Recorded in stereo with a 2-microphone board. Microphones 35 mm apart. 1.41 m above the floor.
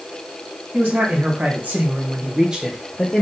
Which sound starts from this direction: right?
A man speaking, at 0.7 s.